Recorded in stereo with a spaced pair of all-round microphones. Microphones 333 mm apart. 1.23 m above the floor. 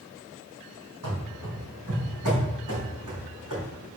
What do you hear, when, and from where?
1.0 s running footsteps: 65° right (ahead or behind), 3 m; by 3.6 s 60° right (ahead or behind), 4 m